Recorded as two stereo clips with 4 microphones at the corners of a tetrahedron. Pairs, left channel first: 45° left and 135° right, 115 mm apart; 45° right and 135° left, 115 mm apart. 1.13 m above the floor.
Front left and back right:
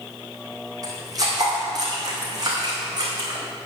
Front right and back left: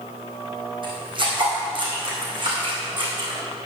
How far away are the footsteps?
About 3 m.